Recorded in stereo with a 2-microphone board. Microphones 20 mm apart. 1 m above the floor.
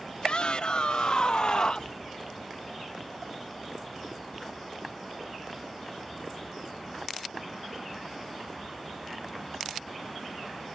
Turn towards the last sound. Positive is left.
turn(degrees=50)  # may be behind; listen again after turning